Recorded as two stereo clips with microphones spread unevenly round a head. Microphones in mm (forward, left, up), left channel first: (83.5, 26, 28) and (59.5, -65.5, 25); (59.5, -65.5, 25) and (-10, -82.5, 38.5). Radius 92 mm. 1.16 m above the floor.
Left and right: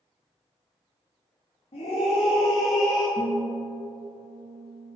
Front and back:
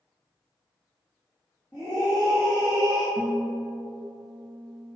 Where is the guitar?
135° right, 0.6 m.